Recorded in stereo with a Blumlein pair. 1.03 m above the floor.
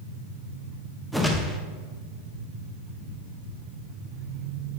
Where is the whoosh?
Straight ahead, 0.7 m.